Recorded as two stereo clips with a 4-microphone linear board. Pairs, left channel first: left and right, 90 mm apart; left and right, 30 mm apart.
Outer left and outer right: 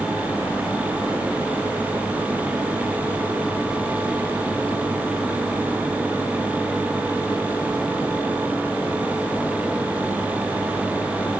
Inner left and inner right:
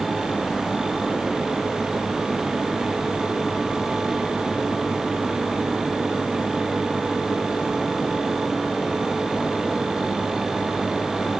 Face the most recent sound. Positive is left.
No sound to turn to.